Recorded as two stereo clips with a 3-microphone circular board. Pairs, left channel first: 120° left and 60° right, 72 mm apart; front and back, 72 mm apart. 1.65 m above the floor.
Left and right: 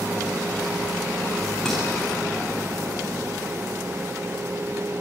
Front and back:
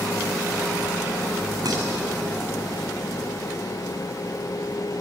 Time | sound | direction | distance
1.6 | dishes clattering | 155° right | 6.5 m